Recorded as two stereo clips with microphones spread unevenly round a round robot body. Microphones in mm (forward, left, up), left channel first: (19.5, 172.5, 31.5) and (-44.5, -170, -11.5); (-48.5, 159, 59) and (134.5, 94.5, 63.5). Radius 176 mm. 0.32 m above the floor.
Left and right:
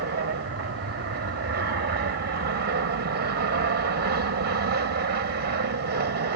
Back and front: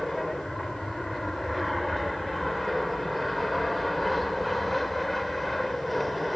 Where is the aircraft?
110° right.